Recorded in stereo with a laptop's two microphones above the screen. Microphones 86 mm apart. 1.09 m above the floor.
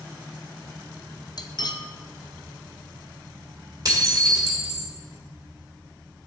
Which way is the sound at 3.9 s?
45° right (ahead or behind).